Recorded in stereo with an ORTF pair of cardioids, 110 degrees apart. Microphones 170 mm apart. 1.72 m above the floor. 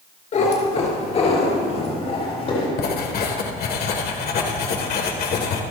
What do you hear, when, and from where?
0.3 s a cat meowing: 45° left, 4 m; by 2.7 s 35° left, 7 m
2.8 s writing: 60° left, 1.9 m